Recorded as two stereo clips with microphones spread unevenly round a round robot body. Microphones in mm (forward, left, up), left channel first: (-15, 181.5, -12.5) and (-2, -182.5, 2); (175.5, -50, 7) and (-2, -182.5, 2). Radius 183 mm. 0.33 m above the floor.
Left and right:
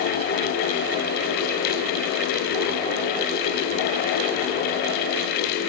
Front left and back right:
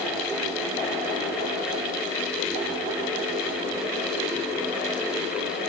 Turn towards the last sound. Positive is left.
No sound to turn to.